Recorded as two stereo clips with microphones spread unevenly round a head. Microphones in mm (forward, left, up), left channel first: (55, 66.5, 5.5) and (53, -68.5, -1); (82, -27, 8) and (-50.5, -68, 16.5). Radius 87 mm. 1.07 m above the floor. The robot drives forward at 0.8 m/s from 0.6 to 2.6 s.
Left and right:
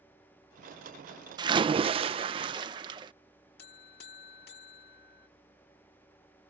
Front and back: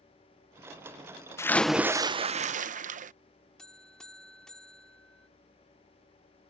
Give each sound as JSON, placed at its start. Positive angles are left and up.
{"t": 1.4, "sound": "a splash", "azimuth_deg": -45}
{"t": 3.6, "sound": "a buzzer", "azimuth_deg": 105}